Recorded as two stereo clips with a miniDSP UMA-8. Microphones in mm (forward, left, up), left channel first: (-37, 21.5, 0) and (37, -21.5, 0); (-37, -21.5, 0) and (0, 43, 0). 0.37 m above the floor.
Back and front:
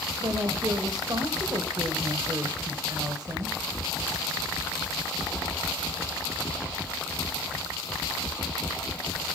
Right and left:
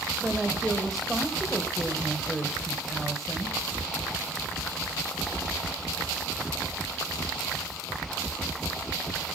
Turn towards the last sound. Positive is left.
turn(degrees=-35)